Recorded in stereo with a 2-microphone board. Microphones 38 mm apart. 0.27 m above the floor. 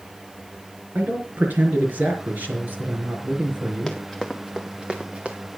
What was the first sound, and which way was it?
A man speaking, 55° right (ahead or behind).